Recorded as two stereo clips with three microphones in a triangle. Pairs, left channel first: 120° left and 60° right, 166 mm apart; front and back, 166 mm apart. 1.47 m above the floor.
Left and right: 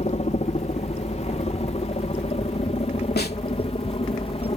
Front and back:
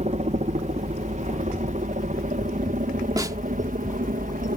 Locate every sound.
0.0 s a helicopter: 150° left; by 4.6 s 165° left
3.2 s a snare drum: 115° left